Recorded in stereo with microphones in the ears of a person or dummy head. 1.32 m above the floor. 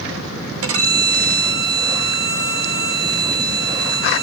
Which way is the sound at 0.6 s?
70° right (ahead or behind).